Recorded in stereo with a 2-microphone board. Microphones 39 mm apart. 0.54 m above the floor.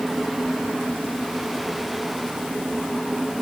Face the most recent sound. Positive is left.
No sound to turn to.